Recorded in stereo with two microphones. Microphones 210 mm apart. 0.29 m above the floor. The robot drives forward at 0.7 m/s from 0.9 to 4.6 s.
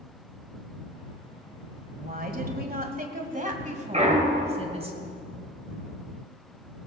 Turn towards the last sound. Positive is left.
turn(degrees=-40)  # may be behind; listen again after turning